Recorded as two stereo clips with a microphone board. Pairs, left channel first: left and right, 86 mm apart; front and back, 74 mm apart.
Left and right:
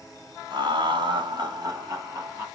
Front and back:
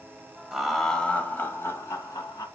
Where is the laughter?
95° right, 1.9 m; by 2.5 s 40° right, 2.5 m.